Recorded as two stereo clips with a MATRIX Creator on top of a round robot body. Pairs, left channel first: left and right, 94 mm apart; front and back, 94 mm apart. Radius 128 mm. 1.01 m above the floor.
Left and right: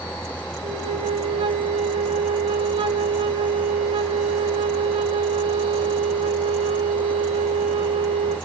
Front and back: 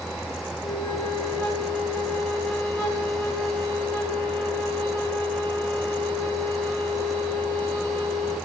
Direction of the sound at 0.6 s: 70° right.